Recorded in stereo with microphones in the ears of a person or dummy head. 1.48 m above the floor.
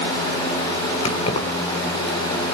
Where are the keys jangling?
35° left (ahead or behind), 3.5 m.